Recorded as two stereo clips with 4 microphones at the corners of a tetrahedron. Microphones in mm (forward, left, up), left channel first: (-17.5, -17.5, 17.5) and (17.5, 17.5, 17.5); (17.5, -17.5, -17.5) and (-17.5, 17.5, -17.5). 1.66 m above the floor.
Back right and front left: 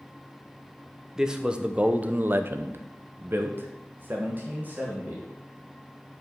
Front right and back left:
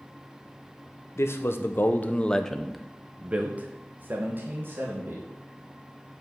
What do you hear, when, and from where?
1.2 s a man speaking: 35° right, 1.0 m; by 5.2 s 100° left, 1.9 m